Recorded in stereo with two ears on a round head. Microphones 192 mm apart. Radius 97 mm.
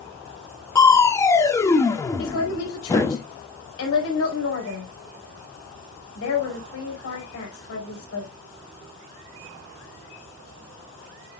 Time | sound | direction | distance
0.8 | crushing | 15° left (ahead or behind) | 0.9 m
2.2 | a woman speaking | 75° left (ahead or behind) | 5 m